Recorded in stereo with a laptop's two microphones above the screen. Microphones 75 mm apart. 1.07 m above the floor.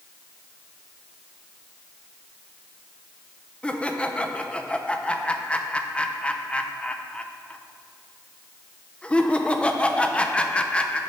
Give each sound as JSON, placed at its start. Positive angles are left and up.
{"t": 3.6, "sound": "laughter", "side_deg": 15, "distance_m": 0.6}